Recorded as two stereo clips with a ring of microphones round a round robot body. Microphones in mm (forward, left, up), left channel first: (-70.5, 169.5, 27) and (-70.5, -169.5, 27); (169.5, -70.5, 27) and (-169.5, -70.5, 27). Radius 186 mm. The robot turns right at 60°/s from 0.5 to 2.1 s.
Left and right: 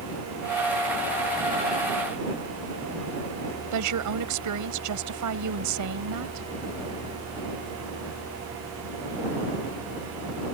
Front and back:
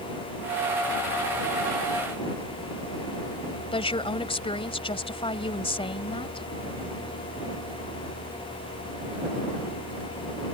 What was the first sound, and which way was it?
A woman speaking, 70° right.